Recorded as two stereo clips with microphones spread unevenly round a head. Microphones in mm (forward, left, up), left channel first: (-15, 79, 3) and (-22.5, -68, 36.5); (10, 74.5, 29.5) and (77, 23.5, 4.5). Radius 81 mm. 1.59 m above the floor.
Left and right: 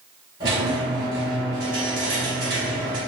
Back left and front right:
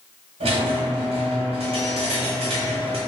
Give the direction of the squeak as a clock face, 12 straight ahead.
1 o'clock.